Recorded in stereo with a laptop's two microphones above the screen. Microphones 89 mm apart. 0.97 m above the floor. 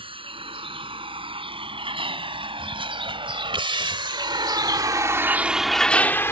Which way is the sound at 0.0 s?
90° right.